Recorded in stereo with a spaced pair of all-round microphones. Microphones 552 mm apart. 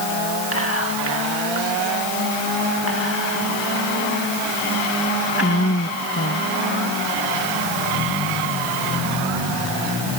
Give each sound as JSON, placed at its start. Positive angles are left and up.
{"t": 0.5, "sound": "whispering", "side_deg": 25}